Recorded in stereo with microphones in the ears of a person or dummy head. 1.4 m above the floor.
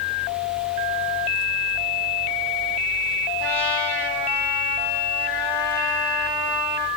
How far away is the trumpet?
About 6.5 m.